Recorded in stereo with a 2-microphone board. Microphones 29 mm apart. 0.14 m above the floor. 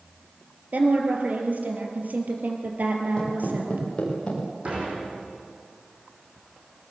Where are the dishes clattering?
45° right (ahead or behind), 5.5 m.